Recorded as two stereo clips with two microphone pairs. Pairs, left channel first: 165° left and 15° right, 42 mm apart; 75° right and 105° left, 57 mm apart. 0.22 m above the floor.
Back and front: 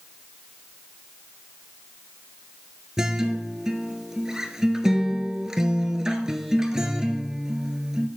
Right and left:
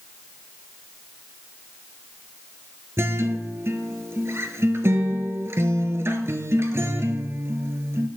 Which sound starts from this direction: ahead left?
A guitar, at 3.0 s.